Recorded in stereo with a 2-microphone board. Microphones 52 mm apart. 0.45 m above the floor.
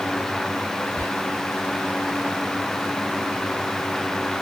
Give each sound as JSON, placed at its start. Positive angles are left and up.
{"t": 1.0, "sound": "whispering", "side_deg": 45, "distance_m": 1.3}